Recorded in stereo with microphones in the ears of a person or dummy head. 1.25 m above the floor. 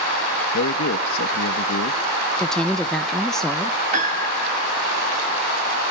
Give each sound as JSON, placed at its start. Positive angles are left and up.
{"t": 0.5, "sound": "a man speaking", "side_deg": 75, "distance_m": 1.8}
{"t": 2.4, "sound": "a woman speaking", "side_deg": -5, "distance_m": 0.9}
{"t": 3.9, "sound": "a piano", "side_deg": -40, "distance_m": 2.5}